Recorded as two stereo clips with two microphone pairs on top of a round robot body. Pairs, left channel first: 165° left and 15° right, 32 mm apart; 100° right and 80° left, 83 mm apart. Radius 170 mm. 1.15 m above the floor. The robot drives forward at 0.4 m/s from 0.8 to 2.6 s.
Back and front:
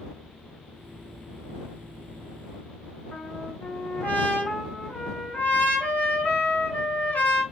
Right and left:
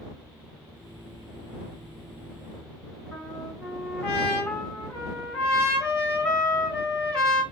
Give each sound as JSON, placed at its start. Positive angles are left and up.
{"t": 3.1, "sound": "a trumpet", "azimuth_deg": -175, "distance_m": 2.0}